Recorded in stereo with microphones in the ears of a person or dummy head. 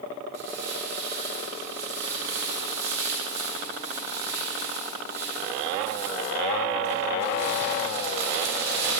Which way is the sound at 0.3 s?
65° right (ahead or behind).